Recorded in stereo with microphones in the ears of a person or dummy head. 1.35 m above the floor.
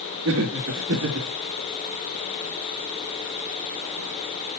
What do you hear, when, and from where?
0.2 s laughter: 70° right (ahead or behind), 3 m